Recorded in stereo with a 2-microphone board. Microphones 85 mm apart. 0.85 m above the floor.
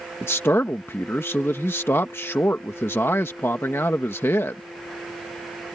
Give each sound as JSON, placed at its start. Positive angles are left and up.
{"t": 0.2, "sound": "a man speaking", "side_deg": 30}